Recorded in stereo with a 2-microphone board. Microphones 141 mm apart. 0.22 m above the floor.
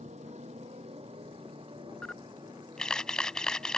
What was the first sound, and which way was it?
A motorcycle, 55° right (ahead or behind).